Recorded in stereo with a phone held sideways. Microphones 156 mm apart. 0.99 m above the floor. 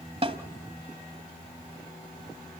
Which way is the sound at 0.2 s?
45° right (ahead or behind).